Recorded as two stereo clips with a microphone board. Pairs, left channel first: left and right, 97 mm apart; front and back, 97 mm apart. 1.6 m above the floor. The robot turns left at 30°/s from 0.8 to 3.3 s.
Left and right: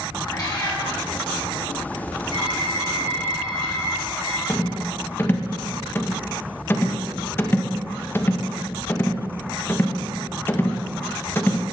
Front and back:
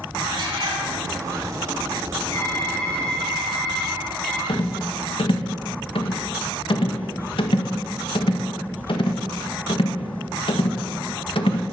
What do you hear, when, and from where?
0.2 s a cat meowing: 135° left, 5.5 m
2.3 s typing on a keyboard: 60° right, 5.5 m; by 4.4 s 90° right, 5.5 m
4.5 s a rattle: 25° left, 1.7 m